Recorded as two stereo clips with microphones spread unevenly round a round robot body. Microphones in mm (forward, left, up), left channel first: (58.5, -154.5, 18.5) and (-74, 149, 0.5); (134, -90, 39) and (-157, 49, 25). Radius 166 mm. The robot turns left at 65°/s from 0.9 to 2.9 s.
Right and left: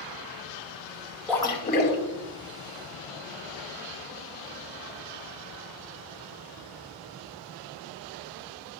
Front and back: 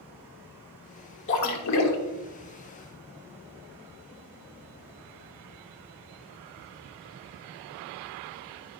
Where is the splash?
20° left, 1.3 m; by 2.0 s 25° right, 1.3 m.